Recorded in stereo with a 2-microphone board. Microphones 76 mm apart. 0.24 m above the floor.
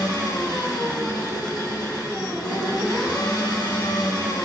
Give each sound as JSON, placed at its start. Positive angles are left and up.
{"t": 0.0, "sound": "an engine running", "side_deg": 60, "distance_m": 5.0}